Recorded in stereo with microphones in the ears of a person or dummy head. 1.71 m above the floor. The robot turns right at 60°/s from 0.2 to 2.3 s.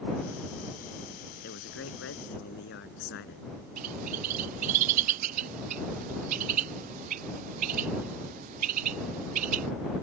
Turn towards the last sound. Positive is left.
turn(degrees=-45)  # may be behind; listen again after turning